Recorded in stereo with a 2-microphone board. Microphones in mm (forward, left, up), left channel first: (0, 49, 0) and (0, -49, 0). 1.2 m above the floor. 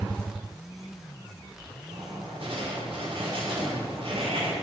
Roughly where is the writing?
Right.